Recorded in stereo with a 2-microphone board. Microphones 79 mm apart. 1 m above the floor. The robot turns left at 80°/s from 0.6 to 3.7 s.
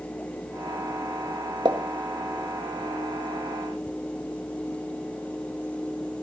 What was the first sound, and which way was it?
A pop, 60° right (ahead or behind).